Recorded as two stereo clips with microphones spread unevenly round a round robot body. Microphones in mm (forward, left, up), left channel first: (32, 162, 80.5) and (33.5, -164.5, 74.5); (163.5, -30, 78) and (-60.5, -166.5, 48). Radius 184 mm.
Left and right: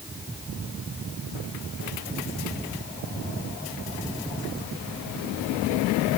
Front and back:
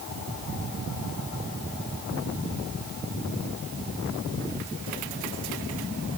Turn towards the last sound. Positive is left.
No sound to turn to.